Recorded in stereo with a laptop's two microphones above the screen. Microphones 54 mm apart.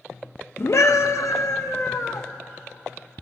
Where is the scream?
55° left (ahead or behind), 0.5 m; by 2.3 s 85° left, 1.3 m.